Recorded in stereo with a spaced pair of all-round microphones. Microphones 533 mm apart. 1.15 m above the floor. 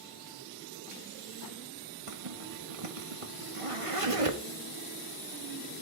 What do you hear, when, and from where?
2.1 s a zipper: 80° right, 1.7 m